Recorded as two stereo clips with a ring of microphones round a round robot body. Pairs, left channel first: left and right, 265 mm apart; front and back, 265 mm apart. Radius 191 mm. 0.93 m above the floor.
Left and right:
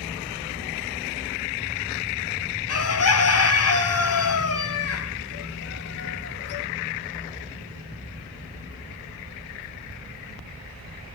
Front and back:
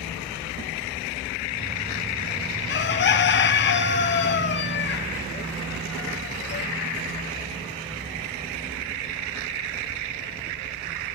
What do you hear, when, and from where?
2.7 s a bird: 55° left, 0.7 m